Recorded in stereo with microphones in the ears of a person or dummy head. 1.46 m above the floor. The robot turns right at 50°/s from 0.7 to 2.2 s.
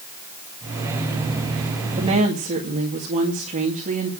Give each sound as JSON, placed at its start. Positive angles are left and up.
{"t": 2.0, "sound": "a woman speaking", "side_deg": -30, "distance_m": 2.0}